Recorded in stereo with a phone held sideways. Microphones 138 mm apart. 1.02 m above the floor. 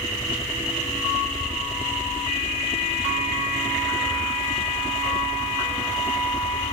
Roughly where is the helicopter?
Left.